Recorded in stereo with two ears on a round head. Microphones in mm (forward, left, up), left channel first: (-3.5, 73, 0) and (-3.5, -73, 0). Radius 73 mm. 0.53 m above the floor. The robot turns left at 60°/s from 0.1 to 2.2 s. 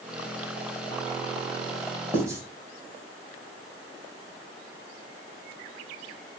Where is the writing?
15° right (ahead or behind), 3.5 m; by 2.4 s 20° right (ahead or behind), 3.5 m.